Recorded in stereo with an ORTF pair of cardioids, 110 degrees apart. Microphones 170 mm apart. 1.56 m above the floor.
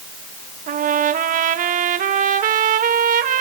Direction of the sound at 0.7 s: 50° right.